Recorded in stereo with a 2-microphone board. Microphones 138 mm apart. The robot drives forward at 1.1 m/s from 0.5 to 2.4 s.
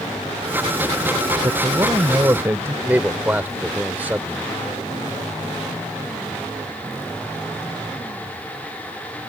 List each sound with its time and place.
1.4 s a man speaking: 25° right (ahead or behind); by 2.8 s 20° right (ahead or behind)
2.9 s a man speaking: 15° right (ahead or behind)